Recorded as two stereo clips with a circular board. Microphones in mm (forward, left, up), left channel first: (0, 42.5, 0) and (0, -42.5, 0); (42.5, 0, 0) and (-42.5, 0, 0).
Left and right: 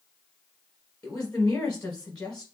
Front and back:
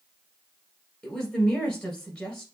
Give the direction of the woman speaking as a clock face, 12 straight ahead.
11 o'clock.